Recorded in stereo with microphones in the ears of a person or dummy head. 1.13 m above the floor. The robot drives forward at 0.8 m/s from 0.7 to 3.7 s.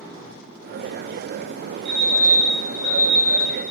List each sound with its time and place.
1.9 s a fire alarm: 65° right (ahead or behind), 4 m; by 3.5 s 50° right (ahead or behind), 4.5 m